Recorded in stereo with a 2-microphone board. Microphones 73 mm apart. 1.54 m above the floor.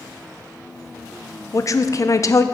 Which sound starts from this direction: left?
A woman speaking, at 1.5 s.